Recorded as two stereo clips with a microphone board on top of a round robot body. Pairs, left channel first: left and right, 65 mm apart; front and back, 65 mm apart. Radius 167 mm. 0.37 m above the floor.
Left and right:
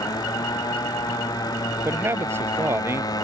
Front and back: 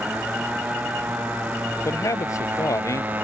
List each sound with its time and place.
0.0 s a motorcycle: 110° left; by 3.2 s 115° left
1.9 s a man speaking: 40° right